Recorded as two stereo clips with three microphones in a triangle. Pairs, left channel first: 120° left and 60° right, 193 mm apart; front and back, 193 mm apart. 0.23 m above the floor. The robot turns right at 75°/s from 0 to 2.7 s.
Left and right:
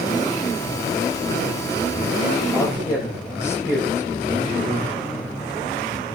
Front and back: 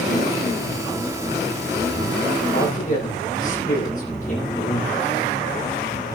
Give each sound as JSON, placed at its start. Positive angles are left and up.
{"t": 2.5, "sound": "a man speaking", "azimuth_deg": 30, "distance_m": 8.5}